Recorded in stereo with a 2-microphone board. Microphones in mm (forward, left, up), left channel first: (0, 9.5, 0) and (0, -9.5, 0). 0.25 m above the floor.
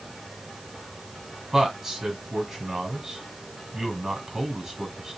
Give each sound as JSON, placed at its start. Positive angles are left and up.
{"t": 1.5, "sound": "a man speaking", "side_deg": -25, "distance_m": 1.7}